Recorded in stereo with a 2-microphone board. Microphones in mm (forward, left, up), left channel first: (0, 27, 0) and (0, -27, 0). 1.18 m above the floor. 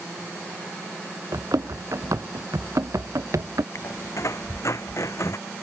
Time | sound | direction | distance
1.3 | running footsteps | 70° right (ahead or behind) | ?
3.8 | a squeak | 60° left (ahead or behind) | ?